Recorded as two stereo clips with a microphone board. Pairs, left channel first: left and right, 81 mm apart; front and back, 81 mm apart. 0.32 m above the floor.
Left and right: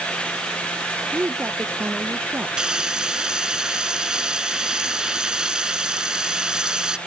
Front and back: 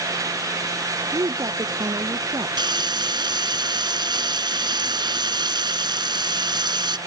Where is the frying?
170° right.